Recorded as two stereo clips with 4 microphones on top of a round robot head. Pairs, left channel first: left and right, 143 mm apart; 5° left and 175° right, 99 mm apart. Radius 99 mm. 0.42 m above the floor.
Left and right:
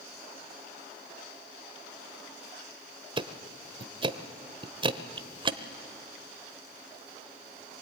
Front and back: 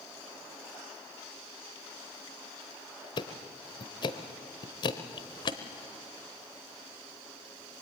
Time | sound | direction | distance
3.2 | ticking | 35° right | 1.0 m